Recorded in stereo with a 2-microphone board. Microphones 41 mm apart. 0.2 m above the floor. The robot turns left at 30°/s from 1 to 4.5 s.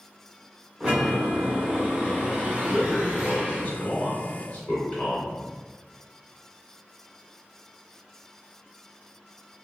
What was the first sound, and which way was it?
A chime, 35° right.